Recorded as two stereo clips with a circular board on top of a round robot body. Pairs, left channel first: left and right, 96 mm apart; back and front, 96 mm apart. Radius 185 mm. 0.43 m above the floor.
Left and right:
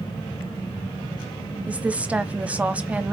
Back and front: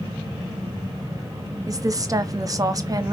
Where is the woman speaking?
20° right, 0.9 m.